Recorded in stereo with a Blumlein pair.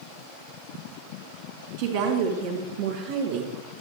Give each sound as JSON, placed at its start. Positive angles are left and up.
{"t": 1.8, "sound": "a woman speaking", "azimuth_deg": -55, "distance_m": 3.0}